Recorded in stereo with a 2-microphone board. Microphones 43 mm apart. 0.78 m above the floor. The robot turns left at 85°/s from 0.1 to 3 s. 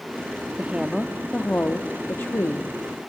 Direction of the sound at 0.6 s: 140° right.